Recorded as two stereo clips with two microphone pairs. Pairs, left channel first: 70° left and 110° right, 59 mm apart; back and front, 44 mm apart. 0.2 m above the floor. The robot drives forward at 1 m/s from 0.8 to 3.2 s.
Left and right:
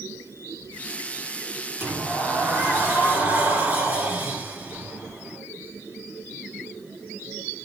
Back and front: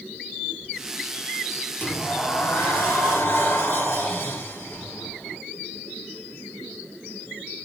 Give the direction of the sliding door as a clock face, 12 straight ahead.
5 o'clock.